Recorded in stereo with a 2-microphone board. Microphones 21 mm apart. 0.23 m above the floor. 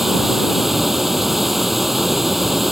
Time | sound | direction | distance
0.0 | running water | 10° right (ahead or behind) | ?